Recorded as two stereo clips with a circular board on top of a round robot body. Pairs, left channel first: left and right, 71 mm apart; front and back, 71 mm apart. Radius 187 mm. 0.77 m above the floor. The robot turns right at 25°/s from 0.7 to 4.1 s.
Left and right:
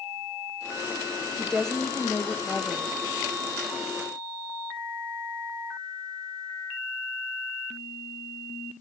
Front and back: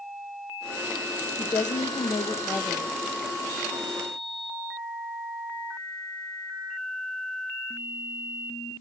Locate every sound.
1.4 s a woman speaking: straight ahead, 0.9 m; by 2.9 s 40° left, 0.9 m